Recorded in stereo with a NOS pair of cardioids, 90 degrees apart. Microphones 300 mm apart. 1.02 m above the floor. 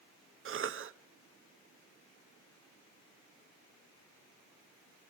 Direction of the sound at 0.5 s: 45° right.